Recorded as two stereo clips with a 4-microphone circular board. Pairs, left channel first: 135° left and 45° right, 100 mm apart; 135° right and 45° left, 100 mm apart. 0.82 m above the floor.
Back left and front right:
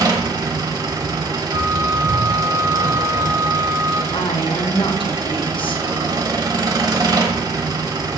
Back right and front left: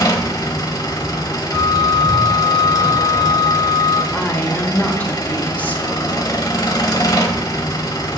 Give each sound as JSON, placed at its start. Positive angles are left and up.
{"t": 0.0, "sound": "an engine running", "azimuth_deg": -90, "distance_m": 1.1}
{"t": 1.5, "sound": "a flute", "azimuth_deg": -105, "distance_m": 3.0}
{"t": 4.1, "sound": "a woman speaking", "azimuth_deg": 155, "distance_m": 1.1}